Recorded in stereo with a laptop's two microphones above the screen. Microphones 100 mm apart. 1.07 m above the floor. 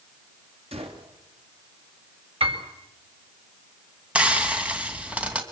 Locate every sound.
0.7 s a gunshot: 80° right, 4 m
2.4 s a piano: 70° right (ahead or behind), 4.5 m
4.2 s frying: 10° right (ahead or behind), 2.5 m